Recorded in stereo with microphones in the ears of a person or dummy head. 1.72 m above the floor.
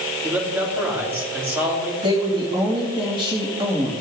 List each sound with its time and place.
0.2 s a man speaking: 15° right (ahead or behind), 4 m
2.0 s a woman speaking: 25° right (ahead or behind), 3 m